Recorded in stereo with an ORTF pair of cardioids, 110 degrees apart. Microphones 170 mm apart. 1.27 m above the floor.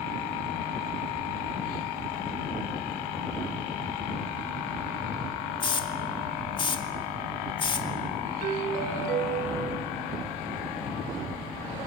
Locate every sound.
5.6 s a hiss: 30° left, 2.5 m
8.4 s a doorbell: 55° right, 2.5 m